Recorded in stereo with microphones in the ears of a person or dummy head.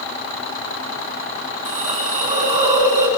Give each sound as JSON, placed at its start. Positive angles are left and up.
{"t": 1.6, "sound": "a hiss", "side_deg": -35, "distance_m": 3.0}